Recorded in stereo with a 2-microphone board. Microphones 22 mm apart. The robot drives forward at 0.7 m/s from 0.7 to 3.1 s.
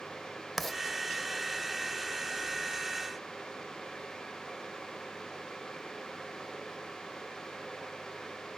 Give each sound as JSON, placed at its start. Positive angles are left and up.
{"t": 0.6, "sound": "writing", "side_deg": 10, "distance_m": 0.7}